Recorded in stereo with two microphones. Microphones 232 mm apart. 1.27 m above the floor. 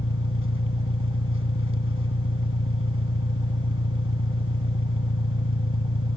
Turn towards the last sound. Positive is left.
turn(degrees=75)  # may be behind; listen again after turning